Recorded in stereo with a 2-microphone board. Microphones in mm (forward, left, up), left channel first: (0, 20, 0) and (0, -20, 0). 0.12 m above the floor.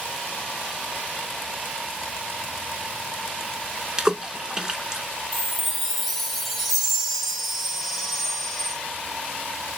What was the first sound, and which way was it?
A splash, 20° right (ahead or behind).